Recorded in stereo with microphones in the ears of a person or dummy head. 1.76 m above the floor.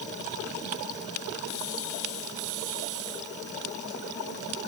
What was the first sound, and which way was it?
Only background noise.